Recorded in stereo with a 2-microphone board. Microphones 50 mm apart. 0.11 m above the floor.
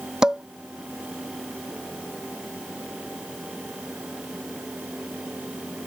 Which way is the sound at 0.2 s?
15° right (ahead or behind).